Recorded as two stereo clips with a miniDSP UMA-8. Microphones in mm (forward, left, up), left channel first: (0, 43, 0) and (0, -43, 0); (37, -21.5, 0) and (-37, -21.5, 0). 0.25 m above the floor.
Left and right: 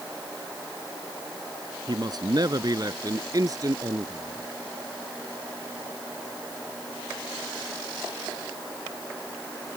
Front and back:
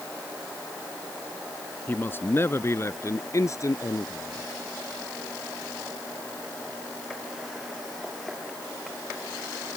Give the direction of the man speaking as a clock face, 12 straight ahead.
2 o'clock.